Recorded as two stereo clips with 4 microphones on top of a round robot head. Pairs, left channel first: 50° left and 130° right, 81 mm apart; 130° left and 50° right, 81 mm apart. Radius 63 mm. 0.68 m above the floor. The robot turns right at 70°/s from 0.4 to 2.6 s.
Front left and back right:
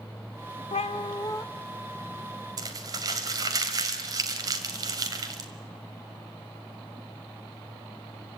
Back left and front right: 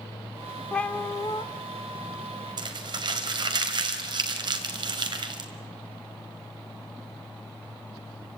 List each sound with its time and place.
0.7 s a cat meowing: 50° left, 0.7 m; by 1.4 s 100° left, 0.7 m
2.6 s crumpling: 85° right, 2 m